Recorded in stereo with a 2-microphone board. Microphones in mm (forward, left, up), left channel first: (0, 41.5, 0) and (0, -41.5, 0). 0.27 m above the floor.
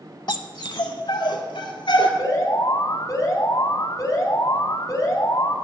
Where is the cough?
I don't hear a cough.